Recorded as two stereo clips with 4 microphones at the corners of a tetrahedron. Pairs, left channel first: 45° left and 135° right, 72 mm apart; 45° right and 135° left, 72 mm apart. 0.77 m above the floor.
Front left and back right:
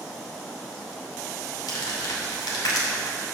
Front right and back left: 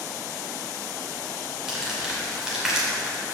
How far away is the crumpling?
About 2.5 m.